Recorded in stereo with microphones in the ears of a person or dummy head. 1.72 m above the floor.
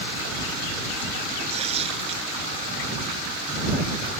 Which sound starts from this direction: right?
Tearing paper, at 1.5 s.